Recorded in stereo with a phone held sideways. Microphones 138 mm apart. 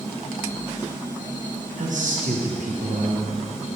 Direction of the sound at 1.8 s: 70° right (ahead or behind).